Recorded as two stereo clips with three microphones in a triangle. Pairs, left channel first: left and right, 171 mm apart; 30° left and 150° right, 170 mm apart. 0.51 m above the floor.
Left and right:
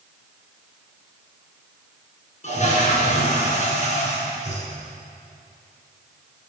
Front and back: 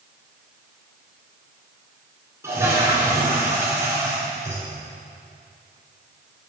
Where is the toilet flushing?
135° left, 3 m.